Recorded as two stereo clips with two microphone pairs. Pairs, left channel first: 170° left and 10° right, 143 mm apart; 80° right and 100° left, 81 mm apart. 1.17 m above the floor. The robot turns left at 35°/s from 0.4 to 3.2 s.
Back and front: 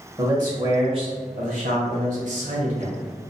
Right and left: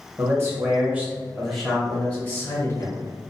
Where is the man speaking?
50° left, 1.3 m; by 3.0 s 40° right, 1.3 m.